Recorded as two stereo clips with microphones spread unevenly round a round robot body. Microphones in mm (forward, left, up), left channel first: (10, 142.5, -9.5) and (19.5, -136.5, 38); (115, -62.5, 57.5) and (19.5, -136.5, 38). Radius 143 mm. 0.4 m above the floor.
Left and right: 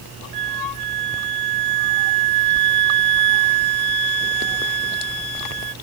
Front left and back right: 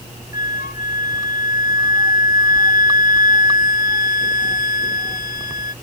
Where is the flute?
75° left.